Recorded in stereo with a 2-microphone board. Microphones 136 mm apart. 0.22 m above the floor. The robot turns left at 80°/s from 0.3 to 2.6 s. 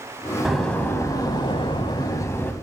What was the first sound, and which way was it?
A door slam, 175° right.